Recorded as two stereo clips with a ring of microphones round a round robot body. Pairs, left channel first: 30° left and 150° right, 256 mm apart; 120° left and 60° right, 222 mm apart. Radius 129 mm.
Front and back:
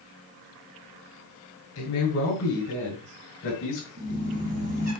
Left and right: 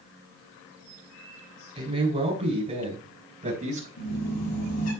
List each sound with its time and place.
1.8 s a man speaking: straight ahead, 4 m; by 3.9 s 10° right, 4.5 m
4.0 s a squeak: 150° left, 5.5 m